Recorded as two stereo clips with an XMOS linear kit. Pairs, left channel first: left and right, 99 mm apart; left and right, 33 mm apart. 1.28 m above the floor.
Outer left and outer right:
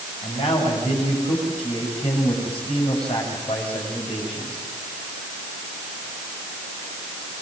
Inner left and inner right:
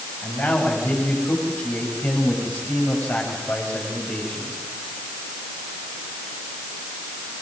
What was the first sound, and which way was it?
A man speaking, 80° left.